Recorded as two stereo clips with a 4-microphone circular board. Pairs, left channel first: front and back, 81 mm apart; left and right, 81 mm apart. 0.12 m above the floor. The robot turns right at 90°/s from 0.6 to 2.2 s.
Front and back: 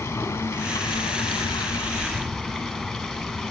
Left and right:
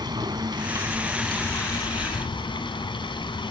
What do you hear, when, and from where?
0.0 s running water: 55° right, 3.5 m; by 3.5 s 90° left, 3.5 m